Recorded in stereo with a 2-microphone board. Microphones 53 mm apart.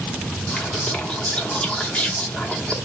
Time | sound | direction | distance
0.5 | whispering | 20° left (ahead or behind) | 0.9 m